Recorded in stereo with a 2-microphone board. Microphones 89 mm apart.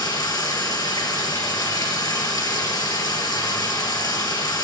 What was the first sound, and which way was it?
Running water, 50° left (ahead or behind).